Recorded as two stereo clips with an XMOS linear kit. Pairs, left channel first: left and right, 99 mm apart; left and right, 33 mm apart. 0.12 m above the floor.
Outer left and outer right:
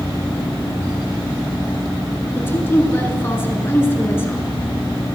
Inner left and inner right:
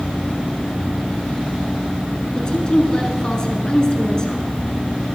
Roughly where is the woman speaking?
Left.